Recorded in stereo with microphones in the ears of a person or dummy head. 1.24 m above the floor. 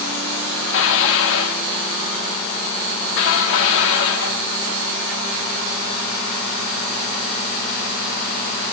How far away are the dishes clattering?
About 1.3 m.